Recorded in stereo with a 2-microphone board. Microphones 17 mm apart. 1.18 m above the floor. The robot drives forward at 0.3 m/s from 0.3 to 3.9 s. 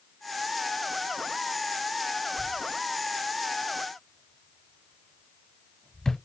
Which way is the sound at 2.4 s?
30° left (ahead or behind).